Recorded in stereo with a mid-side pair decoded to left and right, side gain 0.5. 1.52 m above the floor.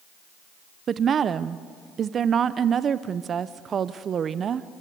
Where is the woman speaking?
45° right, 0.8 m.